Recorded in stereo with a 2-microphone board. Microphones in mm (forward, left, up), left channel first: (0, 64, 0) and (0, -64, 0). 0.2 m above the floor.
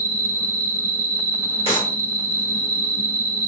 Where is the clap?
45° left (ahead or behind), 1.9 m.